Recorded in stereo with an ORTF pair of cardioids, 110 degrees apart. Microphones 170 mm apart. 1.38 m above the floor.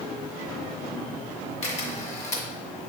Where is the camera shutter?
40° left, 1.8 m.